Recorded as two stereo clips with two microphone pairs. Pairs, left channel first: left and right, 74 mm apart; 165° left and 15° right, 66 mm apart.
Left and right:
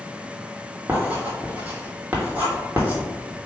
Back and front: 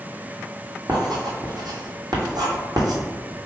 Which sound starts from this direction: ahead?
Writing, at 0.9 s.